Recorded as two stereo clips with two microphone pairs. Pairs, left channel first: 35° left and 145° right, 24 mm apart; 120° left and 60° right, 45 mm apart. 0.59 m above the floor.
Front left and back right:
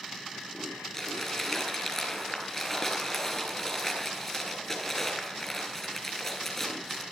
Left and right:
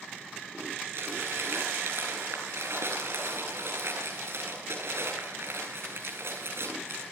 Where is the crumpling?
35° right, 8 m.